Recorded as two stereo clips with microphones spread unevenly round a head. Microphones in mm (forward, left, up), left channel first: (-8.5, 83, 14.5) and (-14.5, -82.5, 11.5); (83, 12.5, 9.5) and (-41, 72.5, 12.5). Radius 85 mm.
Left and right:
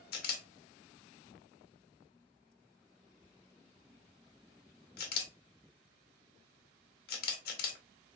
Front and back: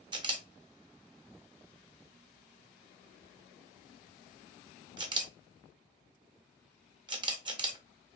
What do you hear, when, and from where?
0.1 s a camera shutter: 105° left, 0.8 m